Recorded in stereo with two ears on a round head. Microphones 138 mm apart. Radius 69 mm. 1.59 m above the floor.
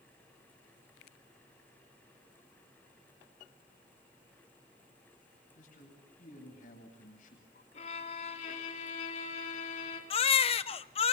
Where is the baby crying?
40° left (ahead or behind), 0.7 m.